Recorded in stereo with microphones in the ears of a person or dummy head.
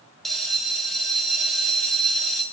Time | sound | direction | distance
0.2 | a bell | 5° right (ahead or behind) | 0.5 m